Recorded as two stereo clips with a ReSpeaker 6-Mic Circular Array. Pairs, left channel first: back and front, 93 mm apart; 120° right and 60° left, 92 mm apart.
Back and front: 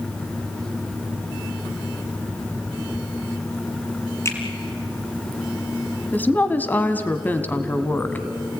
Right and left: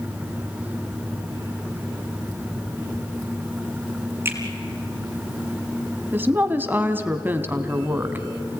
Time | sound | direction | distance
4.2 | a finger snap | 125° left | 4 m
6.1 | a woman speaking | 120° left | 1.4 m